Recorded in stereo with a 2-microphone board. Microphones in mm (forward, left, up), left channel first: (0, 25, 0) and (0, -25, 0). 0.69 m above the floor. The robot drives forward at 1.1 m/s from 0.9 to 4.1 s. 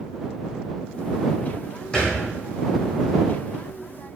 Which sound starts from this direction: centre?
A thud, at 1.9 s.